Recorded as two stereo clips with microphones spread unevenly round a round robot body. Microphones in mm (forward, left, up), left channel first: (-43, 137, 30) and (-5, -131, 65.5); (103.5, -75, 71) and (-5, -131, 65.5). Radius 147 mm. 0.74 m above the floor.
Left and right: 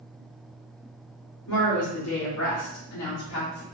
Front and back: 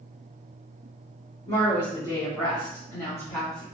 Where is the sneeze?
No sneeze in this recording.